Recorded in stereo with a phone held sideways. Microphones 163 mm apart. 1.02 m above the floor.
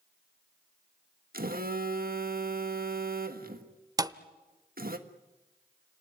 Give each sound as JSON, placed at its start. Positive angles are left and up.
{"t": 1.3, "sound": "a phone buzzing", "side_deg": -65, "distance_m": 1.5}
{"t": 4.0, "sound": "a thud", "side_deg": -20, "distance_m": 0.7}